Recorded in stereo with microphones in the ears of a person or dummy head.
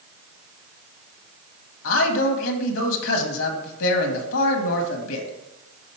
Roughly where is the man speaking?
Left.